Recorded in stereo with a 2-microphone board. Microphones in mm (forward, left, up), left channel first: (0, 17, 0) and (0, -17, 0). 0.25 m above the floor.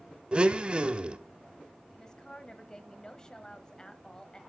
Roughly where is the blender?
Right.